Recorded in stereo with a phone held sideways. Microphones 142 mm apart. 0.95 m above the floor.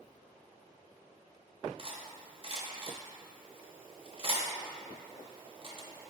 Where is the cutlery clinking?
40° right (ahead or behind), 0.6 m.